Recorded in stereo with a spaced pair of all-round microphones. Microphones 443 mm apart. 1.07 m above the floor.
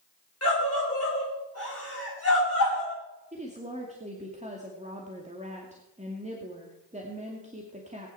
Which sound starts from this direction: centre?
A woman speaking, at 3.3 s.